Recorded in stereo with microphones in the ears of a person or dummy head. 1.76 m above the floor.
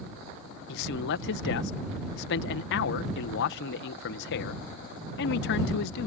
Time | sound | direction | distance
0.7 | a man speaking | 65° left (ahead or behind) | ?